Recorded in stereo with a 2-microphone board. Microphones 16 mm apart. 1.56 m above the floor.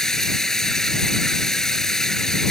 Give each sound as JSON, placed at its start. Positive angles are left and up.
{"t": 0.0, "sound": "running water", "side_deg": 35}